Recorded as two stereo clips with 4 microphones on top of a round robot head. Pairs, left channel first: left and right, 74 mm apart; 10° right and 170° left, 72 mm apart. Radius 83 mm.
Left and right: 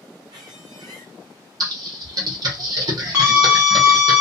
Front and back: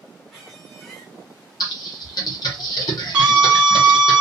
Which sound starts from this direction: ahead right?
Typing on a keyboard, at 1.6 s.